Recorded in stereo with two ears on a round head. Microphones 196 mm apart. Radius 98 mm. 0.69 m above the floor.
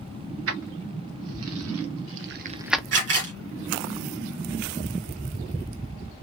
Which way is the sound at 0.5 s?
65° right (ahead or behind).